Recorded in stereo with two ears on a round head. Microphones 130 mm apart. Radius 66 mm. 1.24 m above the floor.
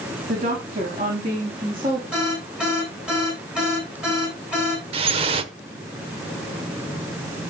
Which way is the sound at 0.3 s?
55° right (ahead or behind).